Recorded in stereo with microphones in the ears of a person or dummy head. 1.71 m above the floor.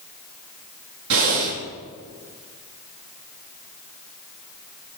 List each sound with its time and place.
1.1 s breathing: 70° right (ahead or behind), 4 m